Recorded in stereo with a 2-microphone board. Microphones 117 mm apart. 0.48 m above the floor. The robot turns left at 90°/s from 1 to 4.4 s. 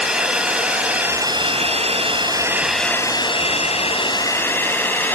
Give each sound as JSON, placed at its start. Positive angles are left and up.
{"t": 0.0, "sound": "a drone", "side_deg": -5}